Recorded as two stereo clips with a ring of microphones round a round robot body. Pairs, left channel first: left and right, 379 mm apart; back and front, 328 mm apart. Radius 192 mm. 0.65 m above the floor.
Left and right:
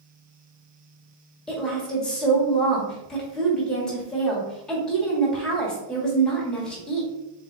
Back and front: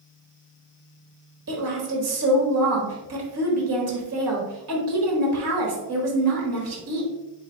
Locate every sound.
1.5 s a woman speaking: 5° left, 1.4 m